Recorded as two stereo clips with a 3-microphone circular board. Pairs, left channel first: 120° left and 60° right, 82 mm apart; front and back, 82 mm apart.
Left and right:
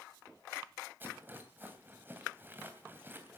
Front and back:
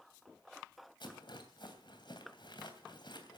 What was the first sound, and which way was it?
A rattle, 5° left.